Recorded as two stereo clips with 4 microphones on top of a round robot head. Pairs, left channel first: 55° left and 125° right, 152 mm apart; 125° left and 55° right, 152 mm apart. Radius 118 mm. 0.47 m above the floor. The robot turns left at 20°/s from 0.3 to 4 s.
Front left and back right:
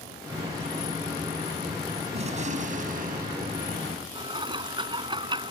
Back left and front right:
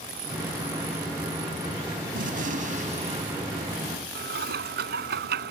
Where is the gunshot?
80° right; by 4.0 s 120° right.